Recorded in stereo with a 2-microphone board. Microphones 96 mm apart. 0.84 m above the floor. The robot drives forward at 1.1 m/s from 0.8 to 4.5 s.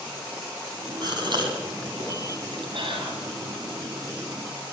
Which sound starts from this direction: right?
A gasp, at 1.0 s.